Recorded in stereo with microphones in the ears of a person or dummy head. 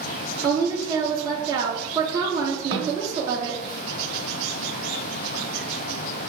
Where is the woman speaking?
20° right (ahead or behind), 0.5 m.